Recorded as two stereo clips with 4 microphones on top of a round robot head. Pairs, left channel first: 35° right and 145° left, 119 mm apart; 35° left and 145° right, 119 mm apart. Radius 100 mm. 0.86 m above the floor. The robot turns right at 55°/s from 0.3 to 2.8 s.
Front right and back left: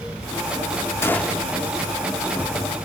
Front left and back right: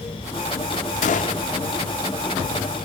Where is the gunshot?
35° left, 0.6 m; by 1.4 s 60° left, 0.6 m.